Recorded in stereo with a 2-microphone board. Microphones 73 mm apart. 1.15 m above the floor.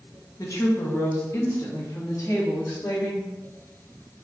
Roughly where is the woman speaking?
Left.